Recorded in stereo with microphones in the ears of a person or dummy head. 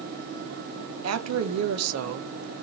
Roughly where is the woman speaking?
Right.